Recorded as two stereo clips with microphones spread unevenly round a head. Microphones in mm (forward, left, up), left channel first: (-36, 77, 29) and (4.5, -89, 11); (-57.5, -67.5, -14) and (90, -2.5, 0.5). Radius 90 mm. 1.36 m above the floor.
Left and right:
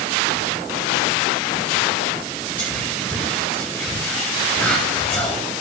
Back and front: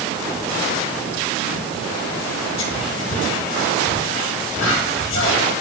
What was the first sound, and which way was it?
Whispering, 175° right.